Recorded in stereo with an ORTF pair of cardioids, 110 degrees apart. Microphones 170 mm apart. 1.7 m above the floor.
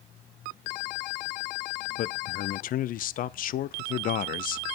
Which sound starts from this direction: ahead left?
A man speaking, at 2.0 s.